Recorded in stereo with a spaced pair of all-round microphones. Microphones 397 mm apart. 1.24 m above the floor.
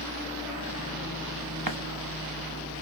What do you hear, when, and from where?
1.7 s a running tap: 60° right (ahead or behind), 1.2 m